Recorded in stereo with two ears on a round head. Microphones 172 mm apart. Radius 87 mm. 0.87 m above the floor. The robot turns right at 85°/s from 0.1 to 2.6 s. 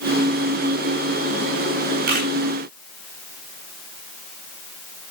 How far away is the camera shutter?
About 6 m.